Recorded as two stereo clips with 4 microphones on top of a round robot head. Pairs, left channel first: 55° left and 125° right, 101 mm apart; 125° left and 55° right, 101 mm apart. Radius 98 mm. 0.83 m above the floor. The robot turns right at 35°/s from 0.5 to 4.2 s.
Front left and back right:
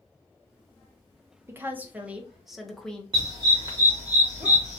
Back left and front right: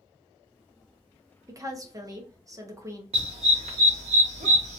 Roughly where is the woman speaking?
Right.